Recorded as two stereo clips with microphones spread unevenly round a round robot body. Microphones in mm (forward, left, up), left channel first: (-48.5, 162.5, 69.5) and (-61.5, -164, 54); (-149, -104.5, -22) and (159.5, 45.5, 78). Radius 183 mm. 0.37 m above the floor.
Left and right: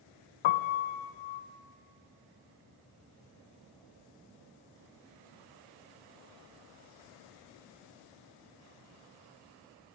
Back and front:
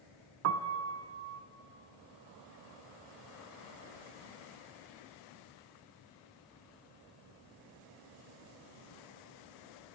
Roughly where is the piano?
Left.